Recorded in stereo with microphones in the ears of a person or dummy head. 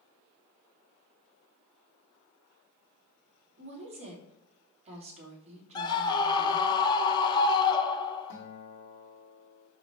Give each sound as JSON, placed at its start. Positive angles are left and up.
{"t": 3.6, "sound": "a woman speaking", "side_deg": -40, "distance_m": 2.5}
{"t": 5.8, "sound": "a scream", "side_deg": 20, "distance_m": 1.1}
{"t": 8.3, "sound": "a guitar", "side_deg": 60, "distance_m": 1.5}